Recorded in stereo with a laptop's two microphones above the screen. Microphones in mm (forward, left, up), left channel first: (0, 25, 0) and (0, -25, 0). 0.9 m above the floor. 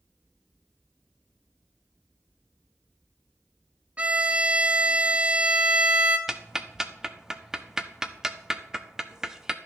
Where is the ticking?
15° right (ahead or behind), 0.6 m.